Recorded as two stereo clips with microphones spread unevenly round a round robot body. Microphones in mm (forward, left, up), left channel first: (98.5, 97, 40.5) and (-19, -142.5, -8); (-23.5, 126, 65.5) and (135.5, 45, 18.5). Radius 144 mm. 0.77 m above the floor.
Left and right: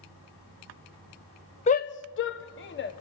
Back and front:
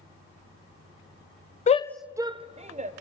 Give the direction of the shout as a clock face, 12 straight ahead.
8 o'clock.